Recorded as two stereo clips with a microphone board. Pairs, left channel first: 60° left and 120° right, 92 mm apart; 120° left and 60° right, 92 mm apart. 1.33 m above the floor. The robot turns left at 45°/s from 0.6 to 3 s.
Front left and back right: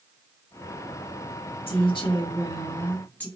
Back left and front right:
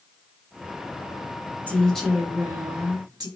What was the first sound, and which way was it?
A woman speaking, 50° left.